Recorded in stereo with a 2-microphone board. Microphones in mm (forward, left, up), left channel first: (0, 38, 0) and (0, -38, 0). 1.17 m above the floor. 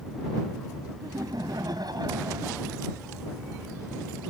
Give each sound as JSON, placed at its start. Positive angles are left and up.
{"t": 1.0, "sound": "laughter", "side_deg": -60}